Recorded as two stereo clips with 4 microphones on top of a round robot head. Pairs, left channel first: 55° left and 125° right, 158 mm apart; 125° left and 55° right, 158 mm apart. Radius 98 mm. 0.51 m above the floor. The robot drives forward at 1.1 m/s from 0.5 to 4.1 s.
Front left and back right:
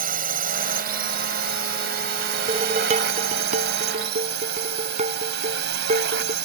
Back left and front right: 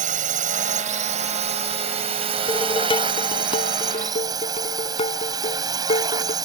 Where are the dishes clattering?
175° right.